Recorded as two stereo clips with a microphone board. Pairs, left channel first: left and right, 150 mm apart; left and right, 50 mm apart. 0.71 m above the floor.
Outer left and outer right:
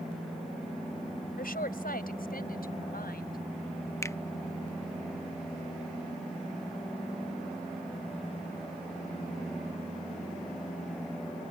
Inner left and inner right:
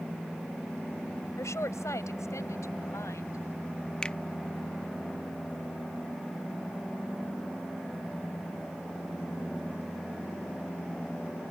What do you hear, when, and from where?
1.4 s a woman speaking: 75° left (ahead or behind); by 3.4 s 80° left
4.0 s a finger snap: 20° left (ahead or behind)